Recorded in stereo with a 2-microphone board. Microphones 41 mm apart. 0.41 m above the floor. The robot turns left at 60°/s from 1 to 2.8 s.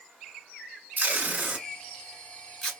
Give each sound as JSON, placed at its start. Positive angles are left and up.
{"t": 1.0, "sound": "tape being pulled", "side_deg": -45, "distance_m": 1.3}